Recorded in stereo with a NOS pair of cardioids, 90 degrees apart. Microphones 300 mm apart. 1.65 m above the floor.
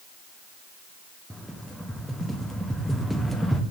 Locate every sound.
1.3 s a rattle: straight ahead, 0.6 m